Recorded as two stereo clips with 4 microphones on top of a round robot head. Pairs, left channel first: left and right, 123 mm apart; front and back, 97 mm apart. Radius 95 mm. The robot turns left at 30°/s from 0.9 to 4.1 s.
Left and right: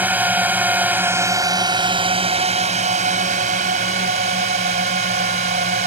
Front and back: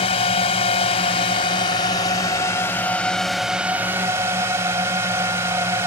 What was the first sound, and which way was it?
A drone, 15° right.